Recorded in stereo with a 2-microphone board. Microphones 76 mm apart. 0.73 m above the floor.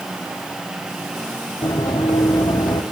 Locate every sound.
1.6 s running footsteps: 75° left (ahead or behind), 3 m; by 2.8 s 70° left (ahead or behind), 2 m